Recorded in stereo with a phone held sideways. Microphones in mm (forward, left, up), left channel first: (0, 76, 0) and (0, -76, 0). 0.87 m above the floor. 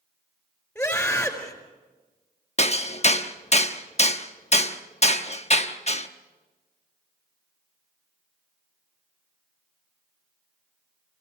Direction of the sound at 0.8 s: 10° left (ahead or behind).